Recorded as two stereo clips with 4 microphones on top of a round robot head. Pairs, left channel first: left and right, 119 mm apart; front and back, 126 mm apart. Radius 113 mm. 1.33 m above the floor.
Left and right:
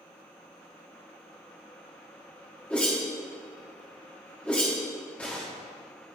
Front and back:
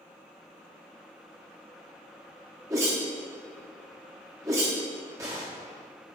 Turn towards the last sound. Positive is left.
turn(degrees=155)